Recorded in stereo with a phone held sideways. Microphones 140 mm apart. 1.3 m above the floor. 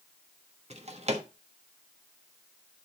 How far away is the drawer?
About 1.3 m.